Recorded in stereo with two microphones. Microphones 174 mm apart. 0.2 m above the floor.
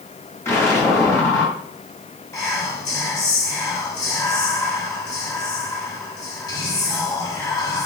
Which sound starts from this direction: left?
Whispering, at 2.3 s.